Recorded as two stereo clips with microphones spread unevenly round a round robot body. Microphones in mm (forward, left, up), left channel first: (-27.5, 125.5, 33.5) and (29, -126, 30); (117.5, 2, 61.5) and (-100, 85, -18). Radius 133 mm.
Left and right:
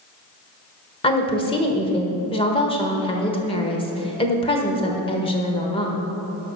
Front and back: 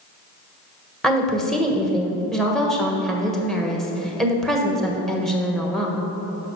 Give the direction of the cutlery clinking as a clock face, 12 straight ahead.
I don't hear cutlery clinking.